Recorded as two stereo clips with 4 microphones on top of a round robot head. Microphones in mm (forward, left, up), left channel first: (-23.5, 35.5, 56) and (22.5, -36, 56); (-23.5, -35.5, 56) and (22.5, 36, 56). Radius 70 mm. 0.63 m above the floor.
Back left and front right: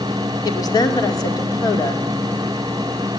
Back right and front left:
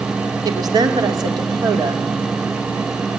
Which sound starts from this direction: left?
A woman speaking, at 0.5 s.